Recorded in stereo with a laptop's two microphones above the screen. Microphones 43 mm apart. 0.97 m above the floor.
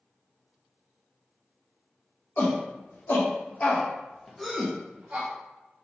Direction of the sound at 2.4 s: 50° left (ahead or behind).